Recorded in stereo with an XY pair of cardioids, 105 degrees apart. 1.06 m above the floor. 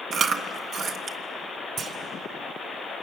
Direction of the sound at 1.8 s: 65° right.